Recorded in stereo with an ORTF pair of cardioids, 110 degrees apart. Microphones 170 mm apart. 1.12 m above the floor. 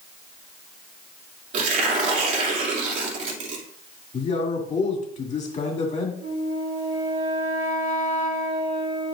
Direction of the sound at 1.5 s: 50° right.